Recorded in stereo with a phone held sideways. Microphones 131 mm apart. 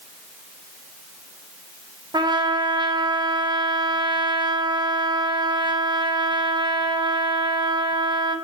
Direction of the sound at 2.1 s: 30° right (ahead or behind).